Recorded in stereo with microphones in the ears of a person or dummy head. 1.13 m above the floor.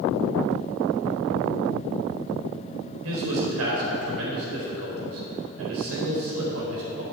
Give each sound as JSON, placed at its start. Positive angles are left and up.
{"t": 3.0, "sound": "a man speaking", "side_deg": -75, "distance_m": 4.0}